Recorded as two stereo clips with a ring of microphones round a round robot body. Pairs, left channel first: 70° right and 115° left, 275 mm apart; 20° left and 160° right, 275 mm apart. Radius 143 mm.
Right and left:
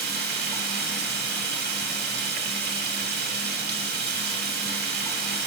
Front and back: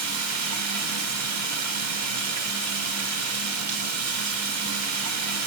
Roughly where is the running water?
Behind.